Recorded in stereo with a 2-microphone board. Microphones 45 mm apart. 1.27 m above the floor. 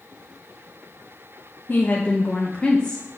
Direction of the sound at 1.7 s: 40° left (ahead or behind).